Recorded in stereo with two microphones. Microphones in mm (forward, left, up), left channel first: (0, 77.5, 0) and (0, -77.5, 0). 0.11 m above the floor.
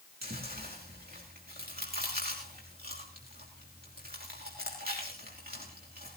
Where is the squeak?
No squeak in this recording.